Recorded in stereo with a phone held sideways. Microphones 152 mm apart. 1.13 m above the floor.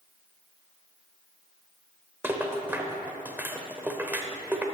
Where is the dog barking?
No dog barking in this recording.